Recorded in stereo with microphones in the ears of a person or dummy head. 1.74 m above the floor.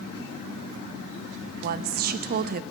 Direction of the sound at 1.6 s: 45° right (ahead or behind).